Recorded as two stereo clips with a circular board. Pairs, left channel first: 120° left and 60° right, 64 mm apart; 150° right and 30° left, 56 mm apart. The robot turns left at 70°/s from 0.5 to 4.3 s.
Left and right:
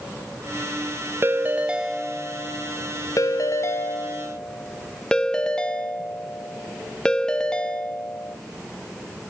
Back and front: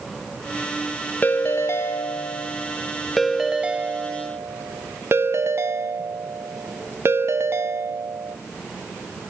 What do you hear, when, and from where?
1.2 s a ringtone: 100° right, 0.7 m; by 8.4 s 45° left, 0.7 m